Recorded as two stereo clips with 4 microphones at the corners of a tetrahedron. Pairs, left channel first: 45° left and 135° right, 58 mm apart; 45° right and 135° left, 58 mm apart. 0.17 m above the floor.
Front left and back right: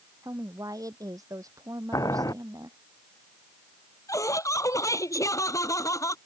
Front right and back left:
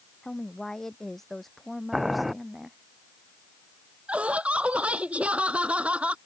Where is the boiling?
45° left.